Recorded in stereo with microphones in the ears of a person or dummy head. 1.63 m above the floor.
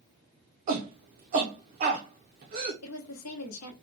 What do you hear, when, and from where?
0.7 s a shout: 30° right (ahead or behind), 0.6 m
2.8 s a woman speaking: 80° left, 1.0 m